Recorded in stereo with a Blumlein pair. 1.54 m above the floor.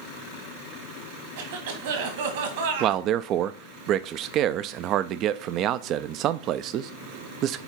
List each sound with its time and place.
1.4 s a cough: 55° right, 1.9 m
2.8 s a man speaking: 35° right, 0.5 m